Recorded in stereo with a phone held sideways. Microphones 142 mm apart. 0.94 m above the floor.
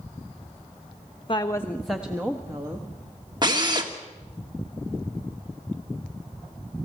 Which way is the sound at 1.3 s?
40° left (ahead or behind).